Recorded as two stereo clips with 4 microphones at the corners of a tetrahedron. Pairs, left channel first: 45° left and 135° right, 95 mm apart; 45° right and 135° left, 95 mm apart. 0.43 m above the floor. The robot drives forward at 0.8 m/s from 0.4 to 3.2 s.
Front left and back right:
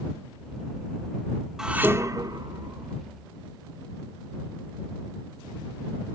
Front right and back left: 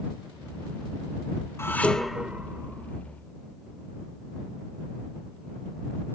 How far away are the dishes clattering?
About 0.6 m.